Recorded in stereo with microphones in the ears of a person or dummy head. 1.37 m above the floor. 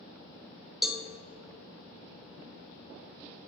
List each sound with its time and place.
0.8 s a cowbell: 5° right (ahead or behind), 1.1 m